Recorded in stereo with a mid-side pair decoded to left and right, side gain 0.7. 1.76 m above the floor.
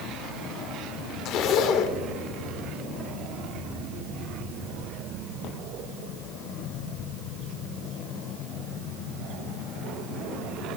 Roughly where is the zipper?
Ahead left.